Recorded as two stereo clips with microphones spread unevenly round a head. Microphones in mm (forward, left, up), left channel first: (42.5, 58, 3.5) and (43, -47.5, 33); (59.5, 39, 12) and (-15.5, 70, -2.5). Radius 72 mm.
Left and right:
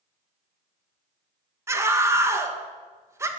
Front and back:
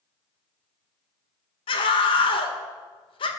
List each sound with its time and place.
1.7 s a scream: 30° right, 1.7 m